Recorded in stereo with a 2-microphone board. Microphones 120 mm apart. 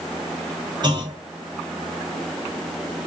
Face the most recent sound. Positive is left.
turn(degrees=-40)  # may be behind; listen again after turning